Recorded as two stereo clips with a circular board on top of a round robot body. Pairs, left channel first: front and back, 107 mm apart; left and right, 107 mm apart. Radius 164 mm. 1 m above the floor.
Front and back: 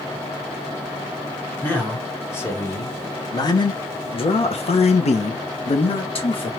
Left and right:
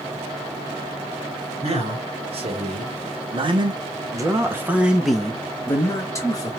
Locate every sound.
1.6 s a man speaking: 75° right, 2 m; by 6.5 s 35° left, 1.3 m